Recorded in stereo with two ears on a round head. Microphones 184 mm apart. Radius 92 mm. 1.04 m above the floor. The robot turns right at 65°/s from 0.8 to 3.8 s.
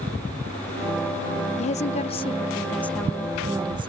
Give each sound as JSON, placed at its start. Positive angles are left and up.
{"t": 1.6, "sound": "a woman speaking", "azimuth_deg": 80}